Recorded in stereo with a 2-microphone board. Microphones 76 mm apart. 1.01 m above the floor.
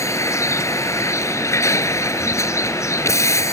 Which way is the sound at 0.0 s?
40° left (ahead or behind).